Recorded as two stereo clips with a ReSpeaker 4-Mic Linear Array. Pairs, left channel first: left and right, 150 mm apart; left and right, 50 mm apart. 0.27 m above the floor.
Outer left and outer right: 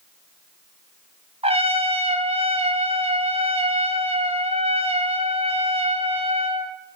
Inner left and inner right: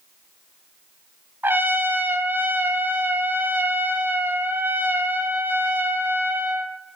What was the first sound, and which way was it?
A trumpet, 40° right (ahead or behind).